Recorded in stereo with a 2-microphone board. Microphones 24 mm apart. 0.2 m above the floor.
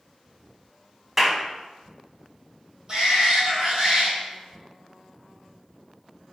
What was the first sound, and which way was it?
A clap, 15° right (ahead or behind).